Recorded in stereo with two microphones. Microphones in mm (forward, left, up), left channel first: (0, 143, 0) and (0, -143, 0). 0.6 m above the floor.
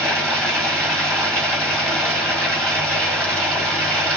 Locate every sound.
0.0 s running water: 5° left (ahead or behind), 1.8 m